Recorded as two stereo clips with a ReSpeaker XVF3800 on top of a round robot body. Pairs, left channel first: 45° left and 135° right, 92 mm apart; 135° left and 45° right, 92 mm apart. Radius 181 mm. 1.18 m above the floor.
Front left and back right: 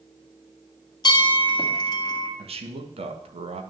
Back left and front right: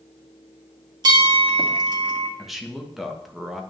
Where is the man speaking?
135° right, 1.5 m.